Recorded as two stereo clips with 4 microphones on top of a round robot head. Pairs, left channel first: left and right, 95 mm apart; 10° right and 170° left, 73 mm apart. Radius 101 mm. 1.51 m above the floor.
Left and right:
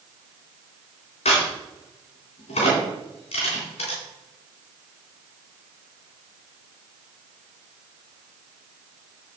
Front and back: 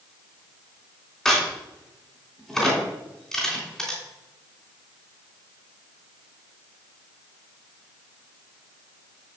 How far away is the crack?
About 3 m.